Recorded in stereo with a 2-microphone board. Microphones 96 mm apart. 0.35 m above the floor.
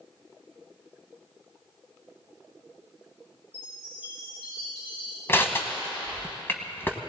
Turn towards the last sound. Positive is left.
turn(degrees=25)  # may be behind; listen again after turning